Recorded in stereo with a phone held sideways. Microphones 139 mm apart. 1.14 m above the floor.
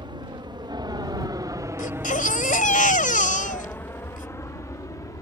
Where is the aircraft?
35° right (ahead or behind); by 5.2 s 25° left (ahead or behind).